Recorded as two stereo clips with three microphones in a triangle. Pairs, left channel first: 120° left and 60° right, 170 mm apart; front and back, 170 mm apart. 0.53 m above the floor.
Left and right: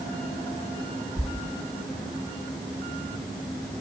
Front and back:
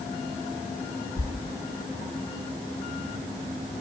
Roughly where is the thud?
Ahead left.